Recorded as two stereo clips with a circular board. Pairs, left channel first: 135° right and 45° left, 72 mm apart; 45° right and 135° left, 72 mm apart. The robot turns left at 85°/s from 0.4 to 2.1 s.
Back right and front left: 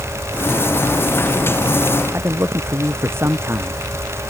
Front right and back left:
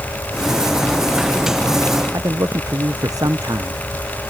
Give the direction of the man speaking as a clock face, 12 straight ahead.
9 o'clock.